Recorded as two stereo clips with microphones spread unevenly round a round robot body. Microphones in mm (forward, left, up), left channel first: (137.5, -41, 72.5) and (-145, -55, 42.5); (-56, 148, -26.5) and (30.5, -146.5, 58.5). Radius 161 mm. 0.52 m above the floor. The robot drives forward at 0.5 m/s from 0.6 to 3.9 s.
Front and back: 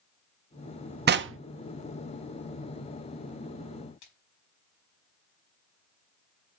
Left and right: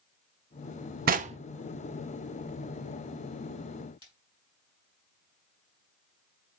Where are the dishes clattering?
I don't hear dishes clattering.